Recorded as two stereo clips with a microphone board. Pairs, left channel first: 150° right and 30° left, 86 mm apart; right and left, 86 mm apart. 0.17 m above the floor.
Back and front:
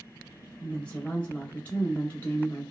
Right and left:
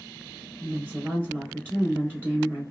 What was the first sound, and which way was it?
A woman speaking, 145° left.